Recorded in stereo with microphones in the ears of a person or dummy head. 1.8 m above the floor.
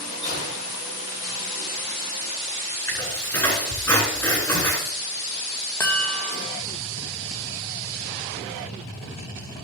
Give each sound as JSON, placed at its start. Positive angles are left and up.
{"t": 0.2, "sound": "a gunshot", "side_deg": 25, "distance_m": 6.0}
{"t": 2.9, "sound": "a squeak", "side_deg": 10, "distance_m": 6.5}
{"t": 5.8, "sound": "a chime", "side_deg": 15, "distance_m": 1.4}